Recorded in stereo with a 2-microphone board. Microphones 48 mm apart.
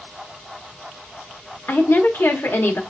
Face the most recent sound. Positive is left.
turn(degrees=60)  # may be behind; listen again after turning